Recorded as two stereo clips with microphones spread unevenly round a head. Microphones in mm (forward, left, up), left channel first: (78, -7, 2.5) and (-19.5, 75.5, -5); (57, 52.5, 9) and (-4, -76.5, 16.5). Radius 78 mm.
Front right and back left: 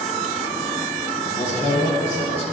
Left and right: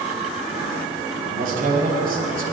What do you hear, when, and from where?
1.2 s a man speaking: 90° right, 5.5 m